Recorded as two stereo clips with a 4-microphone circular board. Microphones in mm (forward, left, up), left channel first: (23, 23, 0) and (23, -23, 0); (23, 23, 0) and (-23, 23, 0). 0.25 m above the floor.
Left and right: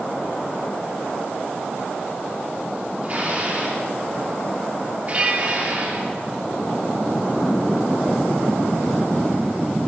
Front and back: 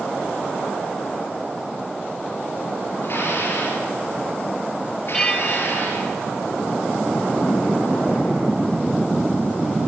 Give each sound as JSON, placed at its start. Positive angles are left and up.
{"t": 3.0, "sound": "dishes clattering", "azimuth_deg": -40, "distance_m": 3.5}
{"t": 5.1, "sound": "a bell", "azimuth_deg": -65, "distance_m": 1.1}